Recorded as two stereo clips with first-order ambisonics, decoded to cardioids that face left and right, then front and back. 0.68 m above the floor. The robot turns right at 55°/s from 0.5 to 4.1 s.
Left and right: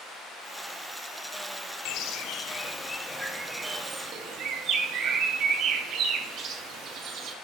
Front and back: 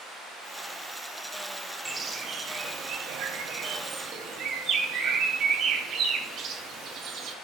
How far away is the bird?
About 0.5 m.